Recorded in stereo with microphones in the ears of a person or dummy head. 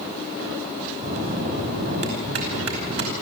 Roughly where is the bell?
Right.